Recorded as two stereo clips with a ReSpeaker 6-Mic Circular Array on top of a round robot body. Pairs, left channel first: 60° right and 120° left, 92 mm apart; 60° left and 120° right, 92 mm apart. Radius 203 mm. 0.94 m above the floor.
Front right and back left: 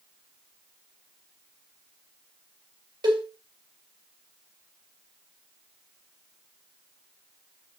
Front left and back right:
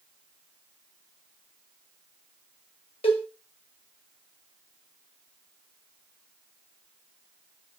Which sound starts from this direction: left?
A cowbell, at 3.0 s.